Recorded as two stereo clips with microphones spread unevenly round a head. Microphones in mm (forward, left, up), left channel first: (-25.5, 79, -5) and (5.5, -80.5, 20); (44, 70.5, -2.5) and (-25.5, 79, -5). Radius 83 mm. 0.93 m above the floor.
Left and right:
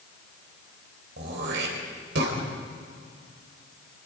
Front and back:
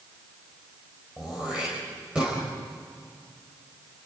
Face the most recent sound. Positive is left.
turn(degrees=-105)